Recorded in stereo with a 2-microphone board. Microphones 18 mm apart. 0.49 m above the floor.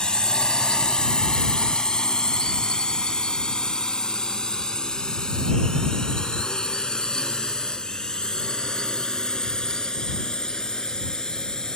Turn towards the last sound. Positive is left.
turn(degrees=40)  # may be behind; listen again after turning